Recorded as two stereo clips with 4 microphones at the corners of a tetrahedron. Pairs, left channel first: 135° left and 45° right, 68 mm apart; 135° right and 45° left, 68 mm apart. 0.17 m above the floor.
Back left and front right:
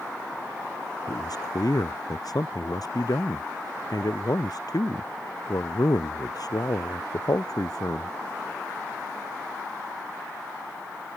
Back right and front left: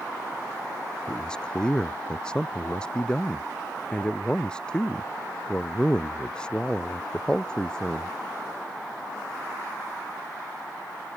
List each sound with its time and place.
1.1 s a man speaking: 150° left